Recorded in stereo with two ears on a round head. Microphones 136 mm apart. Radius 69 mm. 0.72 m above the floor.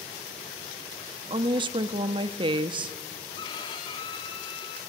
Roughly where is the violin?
Left.